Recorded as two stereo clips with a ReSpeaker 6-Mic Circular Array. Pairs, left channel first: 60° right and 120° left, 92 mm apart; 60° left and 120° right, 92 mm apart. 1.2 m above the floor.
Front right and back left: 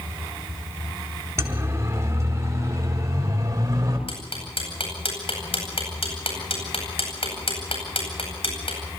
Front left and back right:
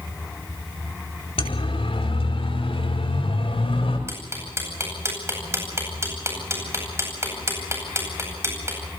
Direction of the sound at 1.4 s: 60° left.